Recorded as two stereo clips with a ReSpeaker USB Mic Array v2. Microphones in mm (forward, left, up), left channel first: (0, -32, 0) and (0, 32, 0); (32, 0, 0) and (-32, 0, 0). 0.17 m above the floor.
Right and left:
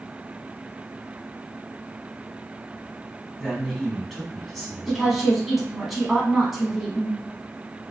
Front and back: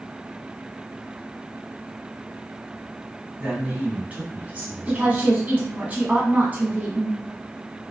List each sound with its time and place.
3.4 s a man speaking: 175° right, 1.1 m
4.9 s a woman speaking: 175° left, 1.0 m